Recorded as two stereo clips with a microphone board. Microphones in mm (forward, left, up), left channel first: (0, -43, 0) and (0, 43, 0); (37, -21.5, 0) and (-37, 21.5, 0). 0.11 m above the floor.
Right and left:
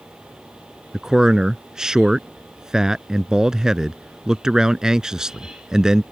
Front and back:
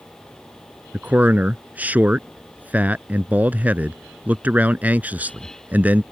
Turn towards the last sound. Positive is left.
turn(degrees=155)